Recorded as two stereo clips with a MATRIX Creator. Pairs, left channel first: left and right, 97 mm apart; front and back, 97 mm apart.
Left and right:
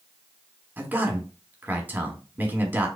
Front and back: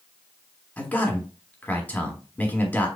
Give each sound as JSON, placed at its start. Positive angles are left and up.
{"t": 0.8, "sound": "a man speaking", "azimuth_deg": -45, "distance_m": 1.3}